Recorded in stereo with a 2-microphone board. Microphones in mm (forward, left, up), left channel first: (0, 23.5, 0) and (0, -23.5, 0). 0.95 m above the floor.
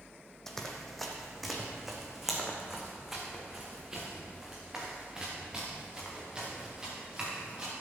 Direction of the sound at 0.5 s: 10° left (ahead or behind).